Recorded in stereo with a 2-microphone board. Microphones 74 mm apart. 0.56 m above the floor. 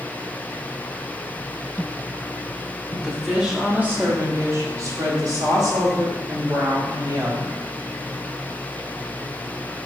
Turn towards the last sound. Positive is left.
turn(degrees=-60)  # may be behind; listen again after turning